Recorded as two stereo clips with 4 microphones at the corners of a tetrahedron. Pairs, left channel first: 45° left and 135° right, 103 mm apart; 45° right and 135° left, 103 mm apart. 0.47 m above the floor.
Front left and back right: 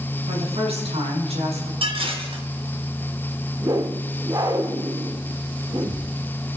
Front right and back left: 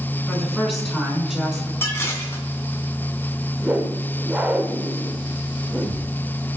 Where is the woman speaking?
140° right, 5 m; by 1.7 s 145° right, 5.5 m.